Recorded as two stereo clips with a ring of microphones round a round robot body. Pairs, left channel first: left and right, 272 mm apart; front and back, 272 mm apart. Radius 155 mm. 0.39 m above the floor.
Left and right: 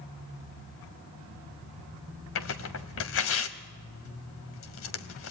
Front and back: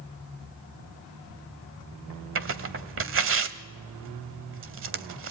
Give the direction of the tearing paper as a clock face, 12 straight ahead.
7 o'clock.